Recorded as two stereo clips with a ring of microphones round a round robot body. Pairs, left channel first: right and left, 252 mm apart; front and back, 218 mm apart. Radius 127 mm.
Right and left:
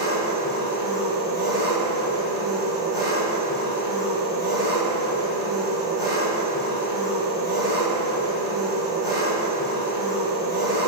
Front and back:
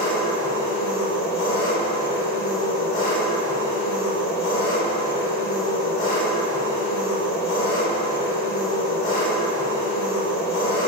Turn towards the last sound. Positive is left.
turn(degrees=15)